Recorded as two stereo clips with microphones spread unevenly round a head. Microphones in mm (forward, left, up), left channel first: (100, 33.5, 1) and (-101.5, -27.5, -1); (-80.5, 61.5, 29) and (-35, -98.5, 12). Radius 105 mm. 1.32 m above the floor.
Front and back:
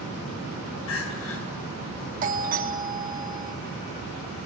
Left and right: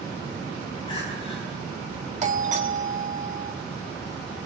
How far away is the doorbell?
About 2.5 m.